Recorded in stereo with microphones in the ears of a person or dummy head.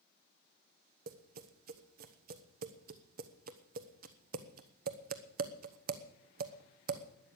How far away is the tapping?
About 1.0 m.